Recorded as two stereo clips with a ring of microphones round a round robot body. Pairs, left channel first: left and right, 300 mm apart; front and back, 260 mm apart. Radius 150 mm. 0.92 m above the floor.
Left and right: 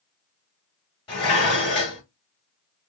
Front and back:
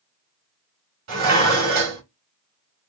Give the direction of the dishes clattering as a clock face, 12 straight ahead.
7 o'clock.